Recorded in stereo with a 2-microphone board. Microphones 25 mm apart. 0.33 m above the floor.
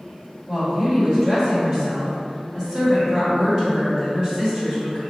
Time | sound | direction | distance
0.5 | a woman speaking | 25° right (ahead or behind) | 1.7 m